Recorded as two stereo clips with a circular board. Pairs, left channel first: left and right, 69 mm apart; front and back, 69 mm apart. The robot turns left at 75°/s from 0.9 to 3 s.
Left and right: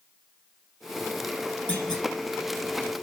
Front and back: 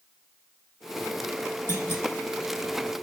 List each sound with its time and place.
1.7 s a clunk: 30° left, 1.3 m; by 2.0 s 5° left, 1.3 m